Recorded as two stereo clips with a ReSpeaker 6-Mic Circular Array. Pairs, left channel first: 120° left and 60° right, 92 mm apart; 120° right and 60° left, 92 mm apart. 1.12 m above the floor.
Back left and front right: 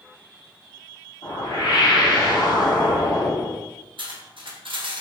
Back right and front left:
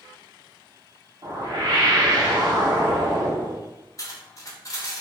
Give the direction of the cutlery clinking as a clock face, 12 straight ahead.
2 o'clock.